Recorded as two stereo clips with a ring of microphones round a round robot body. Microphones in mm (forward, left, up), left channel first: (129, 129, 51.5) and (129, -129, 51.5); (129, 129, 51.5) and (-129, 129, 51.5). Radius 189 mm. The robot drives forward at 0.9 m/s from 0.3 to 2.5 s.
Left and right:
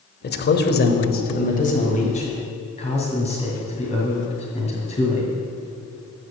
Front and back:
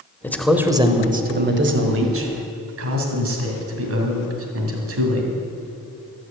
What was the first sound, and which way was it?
A man speaking, 80° left.